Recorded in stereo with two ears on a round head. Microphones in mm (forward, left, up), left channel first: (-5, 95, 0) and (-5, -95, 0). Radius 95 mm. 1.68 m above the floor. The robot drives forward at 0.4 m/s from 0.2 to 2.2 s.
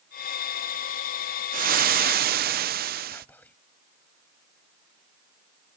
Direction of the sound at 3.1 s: 10° left (ahead or behind).